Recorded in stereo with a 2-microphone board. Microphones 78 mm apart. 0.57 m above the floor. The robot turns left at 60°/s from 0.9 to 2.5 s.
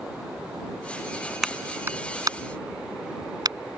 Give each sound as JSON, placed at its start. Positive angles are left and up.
{"t": 1.4, "sound": "a clap", "side_deg": -5}